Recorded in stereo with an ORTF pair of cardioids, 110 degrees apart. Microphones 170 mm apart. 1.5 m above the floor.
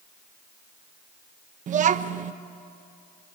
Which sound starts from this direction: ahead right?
A child speaking, at 1.7 s.